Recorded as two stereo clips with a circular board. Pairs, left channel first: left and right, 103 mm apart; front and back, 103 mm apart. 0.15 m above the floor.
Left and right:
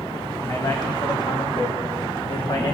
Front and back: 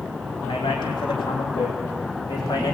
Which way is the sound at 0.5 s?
40° left.